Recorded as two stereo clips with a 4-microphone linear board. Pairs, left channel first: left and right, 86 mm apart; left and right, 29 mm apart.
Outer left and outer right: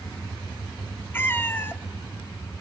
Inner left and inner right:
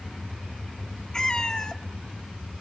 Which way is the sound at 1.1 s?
25° left (ahead or behind).